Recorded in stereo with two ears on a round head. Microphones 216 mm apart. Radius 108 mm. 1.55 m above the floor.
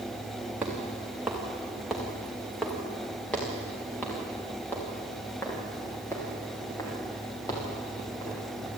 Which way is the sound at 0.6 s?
5° right (ahead or behind).